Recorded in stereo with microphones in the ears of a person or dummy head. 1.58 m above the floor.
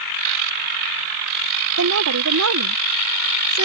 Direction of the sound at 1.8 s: 75° right (ahead or behind).